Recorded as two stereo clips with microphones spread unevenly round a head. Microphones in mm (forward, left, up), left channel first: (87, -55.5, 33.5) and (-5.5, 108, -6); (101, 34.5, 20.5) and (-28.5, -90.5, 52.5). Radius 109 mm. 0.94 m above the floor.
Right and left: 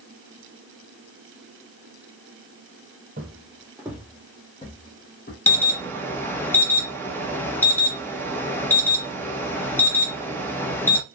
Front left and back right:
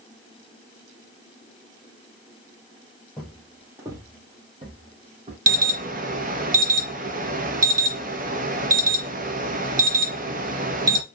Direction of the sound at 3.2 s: 145° left.